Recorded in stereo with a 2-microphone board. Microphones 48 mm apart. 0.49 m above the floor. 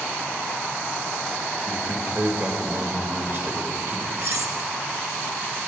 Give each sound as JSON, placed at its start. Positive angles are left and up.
{"t": 1.7, "sound": "a man speaking", "side_deg": -55, "distance_m": 1.8}
{"t": 4.2, "sound": "cutlery clinking", "side_deg": -70, "distance_m": 1.0}